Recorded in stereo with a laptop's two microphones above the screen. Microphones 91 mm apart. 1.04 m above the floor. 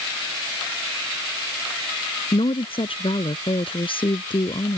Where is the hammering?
No hammering in this recording.